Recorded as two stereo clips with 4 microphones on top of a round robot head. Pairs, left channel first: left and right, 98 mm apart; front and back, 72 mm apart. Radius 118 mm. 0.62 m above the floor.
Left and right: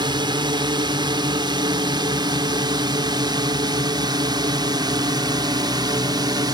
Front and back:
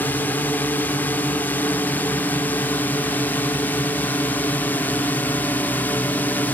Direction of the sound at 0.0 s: 60° right.